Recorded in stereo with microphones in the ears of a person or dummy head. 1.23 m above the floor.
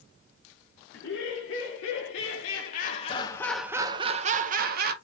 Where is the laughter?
70° left (ahead or behind), 1.5 m; by 4.9 s 55° right (ahead or behind), 0.9 m.